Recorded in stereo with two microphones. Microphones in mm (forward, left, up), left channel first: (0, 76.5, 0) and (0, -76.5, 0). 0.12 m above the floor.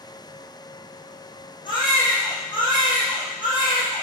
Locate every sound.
1.6 s a baby crying: 30° left (ahead or behind), 4.5 m